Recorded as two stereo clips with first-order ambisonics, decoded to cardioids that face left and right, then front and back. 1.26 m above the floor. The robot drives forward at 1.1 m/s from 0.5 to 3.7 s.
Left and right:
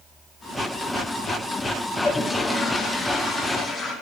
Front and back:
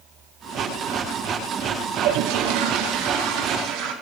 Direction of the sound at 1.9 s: 165° left.